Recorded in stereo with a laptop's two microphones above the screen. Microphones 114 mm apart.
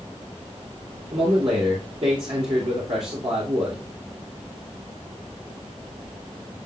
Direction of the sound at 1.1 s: 55° right (ahead or behind).